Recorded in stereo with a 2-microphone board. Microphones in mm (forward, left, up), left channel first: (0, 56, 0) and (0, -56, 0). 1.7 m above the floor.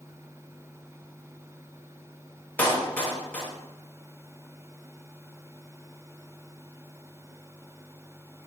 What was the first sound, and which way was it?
A clap, 15° left (ahead or behind).